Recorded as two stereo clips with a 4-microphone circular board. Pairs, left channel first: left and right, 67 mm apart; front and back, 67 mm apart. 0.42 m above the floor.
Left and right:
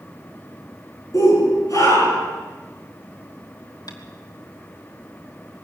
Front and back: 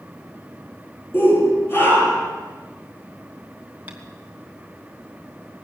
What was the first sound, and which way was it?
A shout, 55° left.